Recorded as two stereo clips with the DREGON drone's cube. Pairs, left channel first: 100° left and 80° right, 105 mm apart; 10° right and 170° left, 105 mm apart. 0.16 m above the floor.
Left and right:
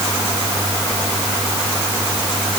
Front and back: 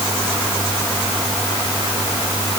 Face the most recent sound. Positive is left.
No sound to turn to.